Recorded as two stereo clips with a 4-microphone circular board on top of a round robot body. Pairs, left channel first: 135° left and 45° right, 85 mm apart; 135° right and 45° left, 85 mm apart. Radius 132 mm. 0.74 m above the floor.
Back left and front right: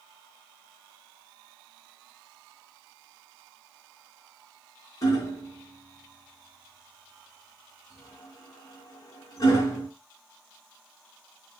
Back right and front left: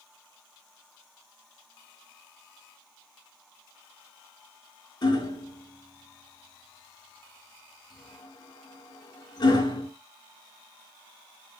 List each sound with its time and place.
5.0 s hammering: 175° right, 3 m